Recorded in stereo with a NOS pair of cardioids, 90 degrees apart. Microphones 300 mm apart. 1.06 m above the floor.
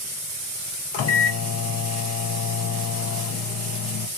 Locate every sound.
0.9 s a microwave: 60° left, 0.6 m